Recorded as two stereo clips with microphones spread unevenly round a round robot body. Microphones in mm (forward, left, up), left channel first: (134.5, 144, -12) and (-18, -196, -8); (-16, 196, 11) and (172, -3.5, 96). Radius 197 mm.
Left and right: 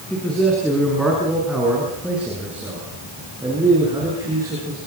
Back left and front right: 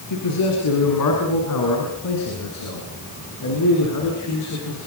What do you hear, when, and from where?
0.1 s a man speaking: 150° left, 7 m; by 4.8 s 165° left, 9.5 m